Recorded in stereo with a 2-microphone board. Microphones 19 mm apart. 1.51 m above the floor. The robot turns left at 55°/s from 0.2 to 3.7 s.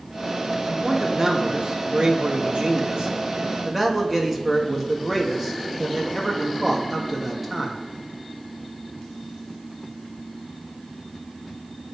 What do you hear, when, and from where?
0.7 s a man speaking: 5° right, 3 m; by 7.8 s 170° right, 3 m